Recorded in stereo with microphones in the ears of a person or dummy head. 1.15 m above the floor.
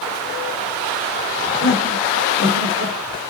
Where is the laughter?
30° right (ahead or behind), 4 m; by 3.3 s 65° right (ahead or behind), 4 m.